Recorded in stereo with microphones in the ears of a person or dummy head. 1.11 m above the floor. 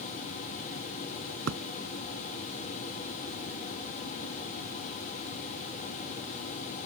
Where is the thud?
80° right.